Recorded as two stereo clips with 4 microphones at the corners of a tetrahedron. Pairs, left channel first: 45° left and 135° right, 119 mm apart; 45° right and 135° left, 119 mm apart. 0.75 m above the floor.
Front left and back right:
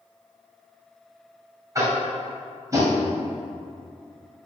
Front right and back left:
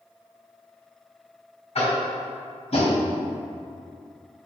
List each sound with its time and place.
1.8 s tapping: 75° right, 2.5 m